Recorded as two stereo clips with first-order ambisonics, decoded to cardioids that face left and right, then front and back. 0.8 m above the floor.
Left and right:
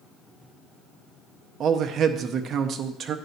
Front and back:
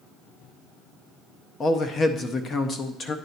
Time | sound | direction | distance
1.6 | a man speaking | 50° right | 0.6 m